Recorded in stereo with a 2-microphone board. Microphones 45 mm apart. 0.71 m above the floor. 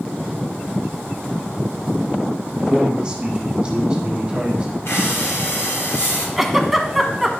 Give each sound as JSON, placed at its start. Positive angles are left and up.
{"t": 2.6, "sound": "a man speaking", "side_deg": -25, "distance_m": 1.5}
{"t": 4.8, "sound": "breathing", "side_deg": 80, "distance_m": 3.0}
{"t": 6.4, "sound": "a giggle", "side_deg": -5, "distance_m": 0.9}